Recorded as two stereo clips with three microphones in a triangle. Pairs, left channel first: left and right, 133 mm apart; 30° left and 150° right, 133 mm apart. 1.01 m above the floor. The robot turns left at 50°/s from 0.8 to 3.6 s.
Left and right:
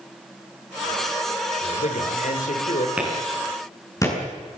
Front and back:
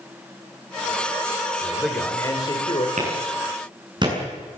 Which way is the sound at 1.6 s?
130° left.